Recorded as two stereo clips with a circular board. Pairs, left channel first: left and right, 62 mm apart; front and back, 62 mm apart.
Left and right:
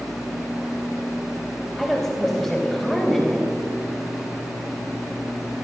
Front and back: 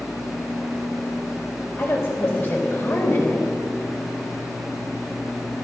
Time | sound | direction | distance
1.8 | a woman speaking | 5° left | 1.8 m